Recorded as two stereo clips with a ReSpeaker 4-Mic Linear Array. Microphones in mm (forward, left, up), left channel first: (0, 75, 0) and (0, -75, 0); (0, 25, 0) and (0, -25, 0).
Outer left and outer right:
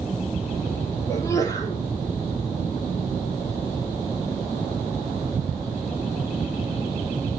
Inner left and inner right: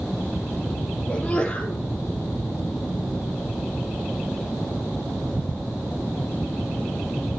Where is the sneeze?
20° left (ahead or behind), 4 m.